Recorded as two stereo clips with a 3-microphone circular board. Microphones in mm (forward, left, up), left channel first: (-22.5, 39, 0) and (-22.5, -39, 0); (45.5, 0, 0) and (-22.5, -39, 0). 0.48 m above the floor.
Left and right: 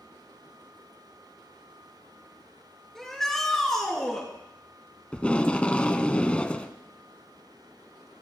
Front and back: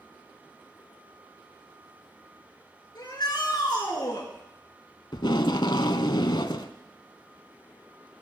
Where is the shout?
5° left, 5 m.